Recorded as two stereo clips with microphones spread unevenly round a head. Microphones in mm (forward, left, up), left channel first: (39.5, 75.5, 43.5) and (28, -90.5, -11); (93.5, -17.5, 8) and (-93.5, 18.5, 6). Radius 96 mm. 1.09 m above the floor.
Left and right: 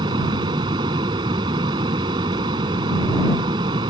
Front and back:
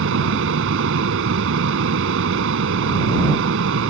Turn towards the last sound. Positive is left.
turn(degrees=-165)